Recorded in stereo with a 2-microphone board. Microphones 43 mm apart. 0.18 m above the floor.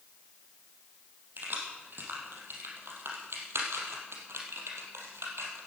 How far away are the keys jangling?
About 5 m.